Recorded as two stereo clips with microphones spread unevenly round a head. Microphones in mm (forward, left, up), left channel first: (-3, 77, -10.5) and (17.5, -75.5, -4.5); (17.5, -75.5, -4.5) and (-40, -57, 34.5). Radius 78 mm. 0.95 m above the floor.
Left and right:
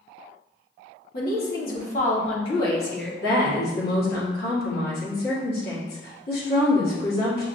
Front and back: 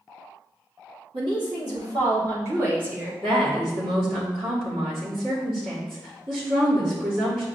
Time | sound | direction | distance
1.1 | a woman speaking | 110° left | 1.6 m
3.2 | a woman speaking | 125° left | 1.9 m